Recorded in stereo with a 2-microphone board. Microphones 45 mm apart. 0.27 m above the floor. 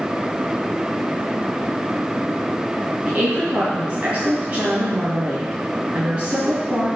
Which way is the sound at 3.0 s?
25° right (ahead or behind).